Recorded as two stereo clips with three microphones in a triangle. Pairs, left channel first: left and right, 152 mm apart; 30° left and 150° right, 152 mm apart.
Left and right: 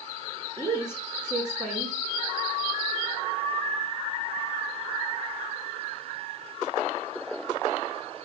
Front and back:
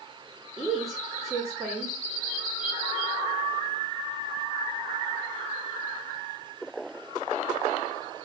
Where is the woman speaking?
125° left, 1.3 m.